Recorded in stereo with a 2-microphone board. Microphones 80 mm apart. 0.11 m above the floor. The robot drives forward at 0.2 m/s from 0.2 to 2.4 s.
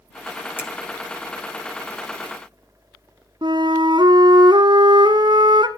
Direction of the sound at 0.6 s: 25° left (ahead or behind).